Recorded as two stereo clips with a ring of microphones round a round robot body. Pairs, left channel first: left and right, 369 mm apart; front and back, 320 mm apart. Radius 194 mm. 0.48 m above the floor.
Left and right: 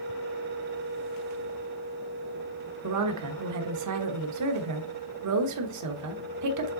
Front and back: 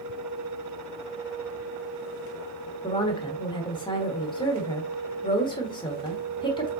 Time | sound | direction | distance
2.8 | a woman speaking | 70° right | 1.3 m